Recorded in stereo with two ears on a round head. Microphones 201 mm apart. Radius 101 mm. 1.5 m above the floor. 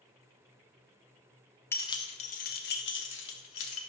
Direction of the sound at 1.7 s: 10° left (ahead or behind).